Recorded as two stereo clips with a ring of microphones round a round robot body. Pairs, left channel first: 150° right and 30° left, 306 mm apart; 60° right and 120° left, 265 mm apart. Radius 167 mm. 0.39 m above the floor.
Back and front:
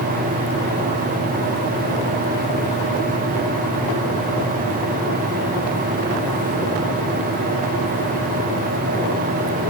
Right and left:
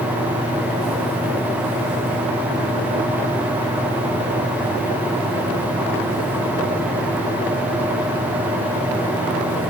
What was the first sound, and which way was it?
Only background noise.